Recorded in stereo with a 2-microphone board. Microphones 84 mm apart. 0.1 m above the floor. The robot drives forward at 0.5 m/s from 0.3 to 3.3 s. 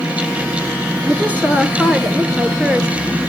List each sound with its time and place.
1.1 s a woman speaking: 20° right (ahead or behind), 1.2 m; by 2.9 s 15° right (ahead or behind), 1.5 m